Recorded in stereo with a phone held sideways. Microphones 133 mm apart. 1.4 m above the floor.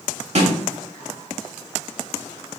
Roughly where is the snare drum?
Right.